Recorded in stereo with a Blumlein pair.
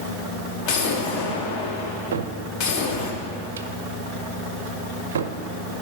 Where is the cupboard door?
60° right, 0.6 m.